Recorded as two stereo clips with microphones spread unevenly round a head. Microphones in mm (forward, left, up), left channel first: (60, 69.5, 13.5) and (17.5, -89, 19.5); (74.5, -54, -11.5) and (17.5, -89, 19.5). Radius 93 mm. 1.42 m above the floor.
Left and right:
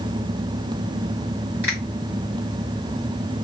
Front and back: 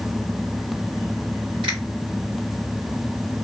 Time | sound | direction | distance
1.6 | a finger snap | 175° left | 1.6 m